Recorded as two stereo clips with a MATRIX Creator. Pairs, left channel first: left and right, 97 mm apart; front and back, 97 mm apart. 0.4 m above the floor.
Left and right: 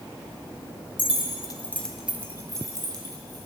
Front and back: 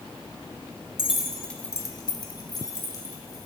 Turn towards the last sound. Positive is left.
turn(degrees=-50)